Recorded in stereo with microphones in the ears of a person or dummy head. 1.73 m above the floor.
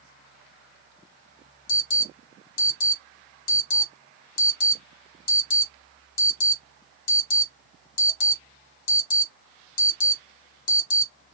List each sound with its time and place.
1.7 s an alarm: 70° left (ahead or behind), 1.7 m